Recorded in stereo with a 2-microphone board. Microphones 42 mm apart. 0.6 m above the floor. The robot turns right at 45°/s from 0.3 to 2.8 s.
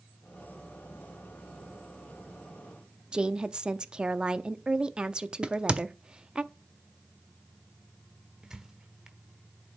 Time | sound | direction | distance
3.1 | a woman speaking | 20° right (ahead or behind) | 0.6 m
5.4 | a crack | 25° right (ahead or behind) | 0.7 m
8.4 | a squeak | 15° right (ahead or behind) | 1.0 m